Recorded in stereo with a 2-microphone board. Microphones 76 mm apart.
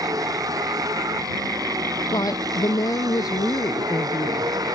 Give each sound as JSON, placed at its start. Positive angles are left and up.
{"t": 0.0, "sound": "a vehicle", "side_deg": -50}
{"t": 2.1, "sound": "a woman speaking", "side_deg": 55}